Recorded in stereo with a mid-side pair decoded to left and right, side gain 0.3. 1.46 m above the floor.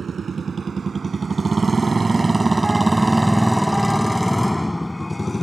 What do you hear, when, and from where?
0.0 s a motorcycle: 60° right; by 5.4 s 25° left